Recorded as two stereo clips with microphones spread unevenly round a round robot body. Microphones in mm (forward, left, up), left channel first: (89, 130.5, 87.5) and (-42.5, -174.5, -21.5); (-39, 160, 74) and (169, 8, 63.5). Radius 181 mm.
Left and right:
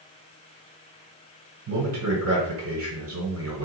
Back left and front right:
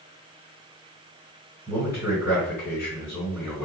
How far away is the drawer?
No drawer in this recording.